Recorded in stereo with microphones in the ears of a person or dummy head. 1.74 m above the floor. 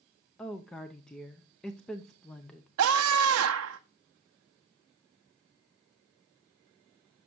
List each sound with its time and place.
0.4 s a woman speaking: 5° left (ahead or behind), 0.5 m
2.8 s a scream: 80° right, 0.6 m